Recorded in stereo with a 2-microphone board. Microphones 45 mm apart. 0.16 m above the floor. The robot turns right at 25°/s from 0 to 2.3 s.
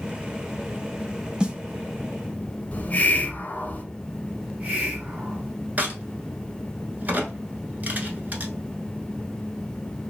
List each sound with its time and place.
1.4 s a snare drum: 20° right (ahead or behind), 0.5 m
2.7 s a hiss: 35° left (ahead or behind), 0.7 m
4.4 s a hiss: 30° right (ahead or behind), 1.2 m
5.8 s a crack: 40° right (ahead or behind), 0.8 m